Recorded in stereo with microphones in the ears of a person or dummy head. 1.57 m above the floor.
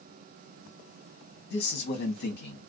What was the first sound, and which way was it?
A man speaking, 55° left (ahead or behind).